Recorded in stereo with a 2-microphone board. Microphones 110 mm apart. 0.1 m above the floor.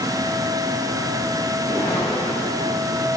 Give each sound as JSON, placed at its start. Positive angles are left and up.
{"t": 1.6, "sound": "a whoosh", "side_deg": 30, "distance_m": 4.5}